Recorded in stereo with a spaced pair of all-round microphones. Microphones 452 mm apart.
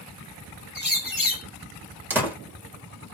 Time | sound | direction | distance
0.8 | a bird | 45° left (ahead or behind) | 1.0 m
2.1 | a door slam | 5° right (ahead or behind) | 1.6 m